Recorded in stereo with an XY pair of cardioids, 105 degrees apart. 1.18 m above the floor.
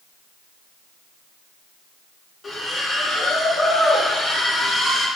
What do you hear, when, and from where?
2.4 s a splash: 35° left, 1.4 m